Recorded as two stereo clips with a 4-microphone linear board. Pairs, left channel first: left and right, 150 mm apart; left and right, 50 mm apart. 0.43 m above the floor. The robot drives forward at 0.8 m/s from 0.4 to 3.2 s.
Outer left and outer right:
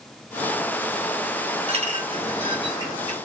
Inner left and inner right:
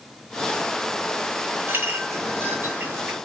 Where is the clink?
45° right (ahead or behind), 1.8 m; by 3.1 s 30° right (ahead or behind), 2.5 m.